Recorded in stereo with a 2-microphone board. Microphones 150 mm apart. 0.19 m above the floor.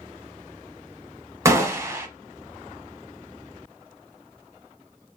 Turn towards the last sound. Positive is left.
turn(degrees=-20)  # may be behind; listen again after turning